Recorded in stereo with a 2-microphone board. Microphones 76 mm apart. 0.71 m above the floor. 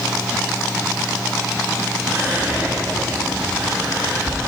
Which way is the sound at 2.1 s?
30° right (ahead or behind).